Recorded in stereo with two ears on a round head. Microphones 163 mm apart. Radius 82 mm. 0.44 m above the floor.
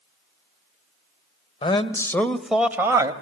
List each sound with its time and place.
1.6 s a man speaking: 30° left (ahead or behind), 1.5 m; by 3.1 s 20° right (ahead or behind), 1.8 m